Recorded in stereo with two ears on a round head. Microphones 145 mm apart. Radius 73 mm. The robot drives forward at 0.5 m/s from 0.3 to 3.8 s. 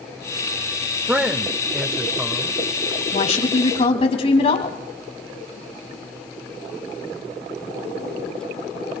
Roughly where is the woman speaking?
Left.